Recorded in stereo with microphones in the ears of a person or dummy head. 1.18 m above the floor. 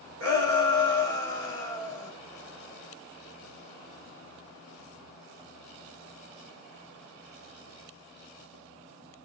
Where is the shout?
75° right (ahead or behind), 3 m.